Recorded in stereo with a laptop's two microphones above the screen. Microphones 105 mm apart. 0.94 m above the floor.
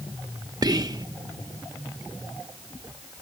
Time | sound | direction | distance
0.6 | whispering | 35° right (ahead or behind) | ?